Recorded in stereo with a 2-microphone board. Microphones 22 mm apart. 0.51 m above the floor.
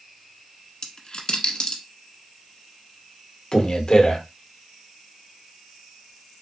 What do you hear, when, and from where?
0.8 s a dropped coin: 40° left (ahead or behind), 1.0 m
3.5 s a man speaking: 35° left (ahead or behind), 1.0 m